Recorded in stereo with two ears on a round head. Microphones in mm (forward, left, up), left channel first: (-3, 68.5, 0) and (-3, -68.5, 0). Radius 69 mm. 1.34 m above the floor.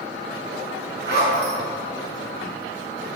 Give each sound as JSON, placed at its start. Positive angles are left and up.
{"t": 1.1, "sound": "a zipper", "side_deg": -75, "distance_m": 7.0}